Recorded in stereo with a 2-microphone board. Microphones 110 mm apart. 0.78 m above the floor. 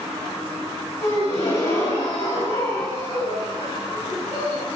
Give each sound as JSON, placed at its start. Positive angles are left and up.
{"t": 1.0, "sound": "a gasp", "side_deg": 60, "distance_m": 2.0}